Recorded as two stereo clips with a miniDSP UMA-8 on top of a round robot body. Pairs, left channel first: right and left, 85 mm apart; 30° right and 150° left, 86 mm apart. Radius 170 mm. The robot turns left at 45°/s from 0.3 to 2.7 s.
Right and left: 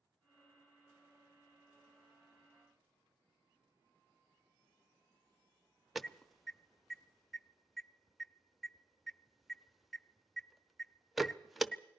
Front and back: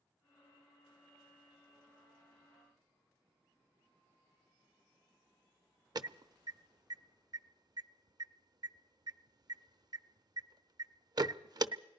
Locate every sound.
6.0 s an alarm: straight behind, 0.8 m